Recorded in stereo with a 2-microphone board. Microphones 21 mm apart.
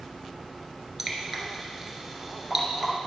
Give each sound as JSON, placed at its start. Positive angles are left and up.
{"t": 1.0, "sound": "dripping", "side_deg": -10, "distance_m": 1.5}